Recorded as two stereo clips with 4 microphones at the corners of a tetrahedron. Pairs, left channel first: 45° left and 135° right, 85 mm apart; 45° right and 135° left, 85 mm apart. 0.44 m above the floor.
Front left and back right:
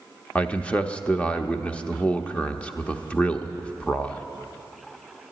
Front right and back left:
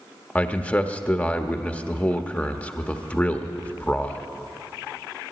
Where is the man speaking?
10° right, 0.8 m.